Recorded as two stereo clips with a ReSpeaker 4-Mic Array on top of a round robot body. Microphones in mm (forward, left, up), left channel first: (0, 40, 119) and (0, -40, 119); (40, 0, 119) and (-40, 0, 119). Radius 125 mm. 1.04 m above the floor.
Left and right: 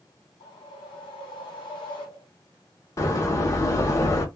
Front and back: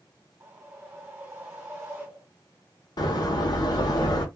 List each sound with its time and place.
0.4 s a whoosh: 110° left, 1.4 m
3.0 s a door slam: 35° left, 0.8 m